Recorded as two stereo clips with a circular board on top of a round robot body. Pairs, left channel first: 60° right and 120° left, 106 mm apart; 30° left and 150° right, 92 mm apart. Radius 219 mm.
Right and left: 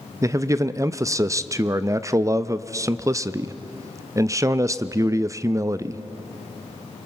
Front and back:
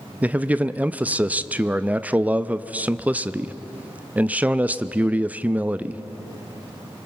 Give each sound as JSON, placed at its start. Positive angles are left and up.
{"t": 0.2, "sound": "a man speaking", "azimuth_deg": 150, "distance_m": 0.7}